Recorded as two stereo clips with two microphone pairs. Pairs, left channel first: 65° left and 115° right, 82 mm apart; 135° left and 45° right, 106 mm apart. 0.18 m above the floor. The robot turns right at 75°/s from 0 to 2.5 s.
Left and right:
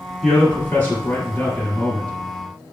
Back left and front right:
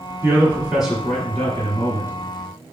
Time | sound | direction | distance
0.2 | a man speaking | 15° right | 1.5 m